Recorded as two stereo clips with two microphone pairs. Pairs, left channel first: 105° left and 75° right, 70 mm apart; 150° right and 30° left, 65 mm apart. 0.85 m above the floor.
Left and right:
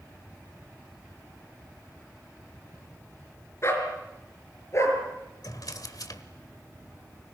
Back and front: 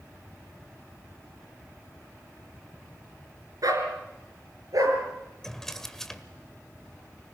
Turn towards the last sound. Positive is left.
turn(degrees=125)